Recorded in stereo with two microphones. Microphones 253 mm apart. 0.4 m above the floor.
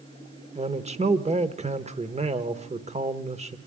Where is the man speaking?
25° right (ahead or behind), 1.0 m.